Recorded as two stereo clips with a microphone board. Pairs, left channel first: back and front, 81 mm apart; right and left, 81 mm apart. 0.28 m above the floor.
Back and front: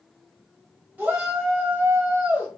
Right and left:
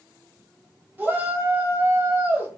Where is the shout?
50° left, 1.1 m.